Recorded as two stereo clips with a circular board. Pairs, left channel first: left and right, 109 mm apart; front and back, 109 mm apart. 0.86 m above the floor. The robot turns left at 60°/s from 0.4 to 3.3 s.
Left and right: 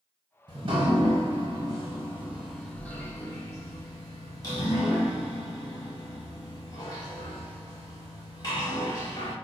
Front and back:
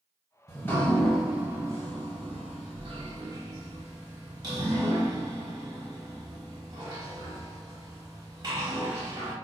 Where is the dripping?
50° right, 0.8 m; by 9.3 s 140° left, 0.8 m.